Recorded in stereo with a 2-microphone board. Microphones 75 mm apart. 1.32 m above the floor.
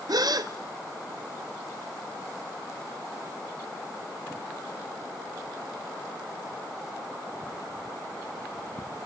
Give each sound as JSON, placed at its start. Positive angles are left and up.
{"t": 0.1, "sound": "a gasp", "side_deg": -60, "distance_m": 1.1}